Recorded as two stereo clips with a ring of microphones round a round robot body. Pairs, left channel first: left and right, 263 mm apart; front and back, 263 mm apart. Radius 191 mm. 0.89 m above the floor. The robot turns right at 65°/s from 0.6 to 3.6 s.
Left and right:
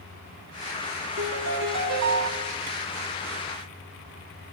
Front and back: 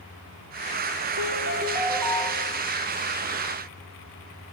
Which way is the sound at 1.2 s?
145° right.